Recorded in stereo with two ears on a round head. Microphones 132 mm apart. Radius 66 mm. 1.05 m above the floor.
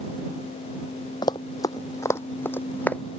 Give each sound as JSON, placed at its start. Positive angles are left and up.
{"t": 1.2, "sound": "running footsteps", "side_deg": 30}